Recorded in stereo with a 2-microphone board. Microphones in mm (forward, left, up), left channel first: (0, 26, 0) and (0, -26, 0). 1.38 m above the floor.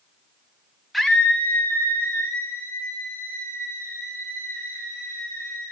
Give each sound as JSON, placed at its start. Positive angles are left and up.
{"t": 0.9, "sound": "a scream", "side_deg": 0, "distance_m": 0.8}